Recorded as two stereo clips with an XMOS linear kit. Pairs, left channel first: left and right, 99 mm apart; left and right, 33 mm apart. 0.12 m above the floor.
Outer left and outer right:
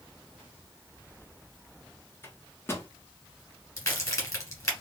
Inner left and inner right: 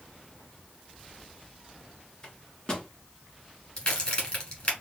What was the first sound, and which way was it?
A microwave, 25° left (ahead or behind).